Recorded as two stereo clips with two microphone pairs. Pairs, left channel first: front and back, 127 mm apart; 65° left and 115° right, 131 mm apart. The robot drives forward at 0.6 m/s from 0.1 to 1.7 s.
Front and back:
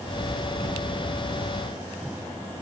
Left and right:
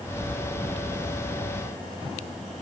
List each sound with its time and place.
Only background noise.